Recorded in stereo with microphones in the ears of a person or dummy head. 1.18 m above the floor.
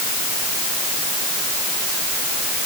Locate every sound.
Only background noise.